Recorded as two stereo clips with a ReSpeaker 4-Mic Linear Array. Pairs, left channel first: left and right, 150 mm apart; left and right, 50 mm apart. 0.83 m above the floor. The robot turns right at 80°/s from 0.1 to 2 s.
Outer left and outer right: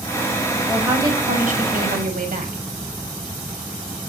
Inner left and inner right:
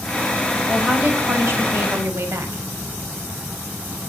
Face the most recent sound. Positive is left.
turn(degrees=-75)